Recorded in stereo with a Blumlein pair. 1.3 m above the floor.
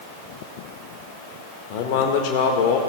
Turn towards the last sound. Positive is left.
turn(degrees=45)